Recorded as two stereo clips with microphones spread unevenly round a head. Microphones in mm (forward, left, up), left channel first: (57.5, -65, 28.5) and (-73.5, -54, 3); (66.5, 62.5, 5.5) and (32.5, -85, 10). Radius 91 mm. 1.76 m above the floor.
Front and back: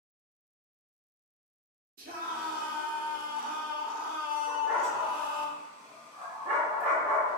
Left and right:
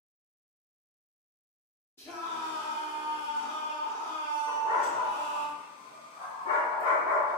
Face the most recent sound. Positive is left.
turn(degrees=90)